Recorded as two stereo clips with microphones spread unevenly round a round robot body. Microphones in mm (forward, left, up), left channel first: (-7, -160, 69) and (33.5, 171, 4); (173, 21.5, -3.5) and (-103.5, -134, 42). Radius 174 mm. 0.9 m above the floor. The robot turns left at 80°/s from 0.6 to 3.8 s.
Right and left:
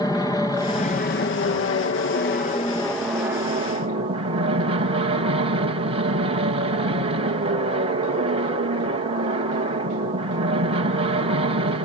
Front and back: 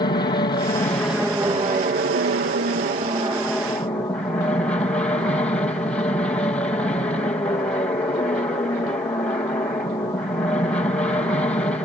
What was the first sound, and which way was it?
An aircraft, 10° right.